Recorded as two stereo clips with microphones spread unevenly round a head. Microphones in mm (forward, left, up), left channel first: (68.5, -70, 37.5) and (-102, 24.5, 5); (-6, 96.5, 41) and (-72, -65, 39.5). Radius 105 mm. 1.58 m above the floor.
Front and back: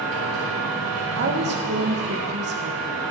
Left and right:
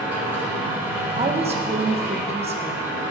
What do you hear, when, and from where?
0.0 s a machine running: 170° left, 5 m
1.1 s a woman speaking: 170° right, 1.4 m